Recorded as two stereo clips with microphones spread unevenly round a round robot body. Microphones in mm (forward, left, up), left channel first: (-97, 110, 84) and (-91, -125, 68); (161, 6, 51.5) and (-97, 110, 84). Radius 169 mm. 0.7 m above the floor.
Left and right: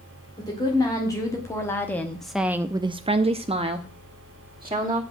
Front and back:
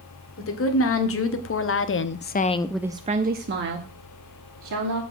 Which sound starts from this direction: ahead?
A woman speaking, at 0.4 s.